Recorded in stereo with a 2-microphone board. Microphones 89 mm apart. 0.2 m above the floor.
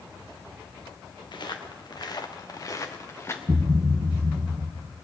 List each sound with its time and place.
1.3 s footsteps: 55° left (ahead or behind), 2.5 m; by 3.4 s 30° left (ahead or behind), 2.0 m
3.5 s a thud: 60° right (ahead or behind), 1.2 m